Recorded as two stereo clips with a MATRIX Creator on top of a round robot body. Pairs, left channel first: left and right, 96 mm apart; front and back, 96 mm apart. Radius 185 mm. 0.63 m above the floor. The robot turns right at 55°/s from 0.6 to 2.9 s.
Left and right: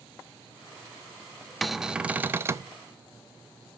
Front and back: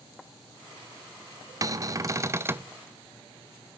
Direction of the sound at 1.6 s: 175° left.